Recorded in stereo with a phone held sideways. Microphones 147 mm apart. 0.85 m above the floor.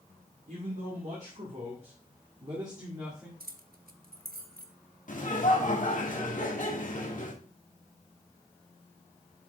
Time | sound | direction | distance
0.5 | a man speaking | 60° right (ahead or behind) | 2 m
3.4 | keys jangling | 85° right | 0.7 m
5.1 | laughter | 60° left (ahead or behind) | 1.8 m